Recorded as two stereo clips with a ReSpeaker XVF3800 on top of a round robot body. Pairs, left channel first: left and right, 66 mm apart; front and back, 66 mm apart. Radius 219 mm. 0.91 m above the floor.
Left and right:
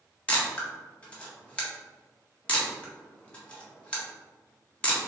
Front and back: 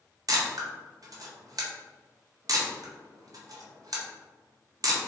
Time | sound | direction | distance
0.3 | a camera shutter | 160° left | 1.4 m